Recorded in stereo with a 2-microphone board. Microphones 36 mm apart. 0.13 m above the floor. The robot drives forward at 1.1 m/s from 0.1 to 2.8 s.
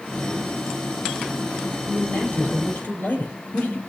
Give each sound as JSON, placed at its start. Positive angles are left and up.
{"t": 1.9, "sound": "a man speaking", "side_deg": 65, "distance_m": 4.5}